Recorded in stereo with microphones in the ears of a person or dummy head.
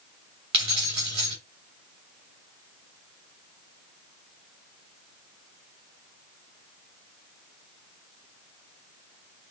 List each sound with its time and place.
0.5 s keys jangling: 25° right (ahead or behind), 2 m